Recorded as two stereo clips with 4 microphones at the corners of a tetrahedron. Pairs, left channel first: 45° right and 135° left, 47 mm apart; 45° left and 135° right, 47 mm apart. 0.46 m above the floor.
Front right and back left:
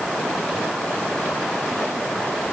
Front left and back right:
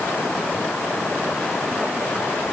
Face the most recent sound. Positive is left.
No sound to turn to.